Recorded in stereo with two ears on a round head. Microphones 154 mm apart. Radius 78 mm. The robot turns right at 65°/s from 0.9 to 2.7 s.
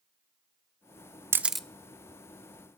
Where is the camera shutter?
15° right (ahead or behind), 0.5 m; by 1.7 s 5° left (ahead or behind), 0.5 m.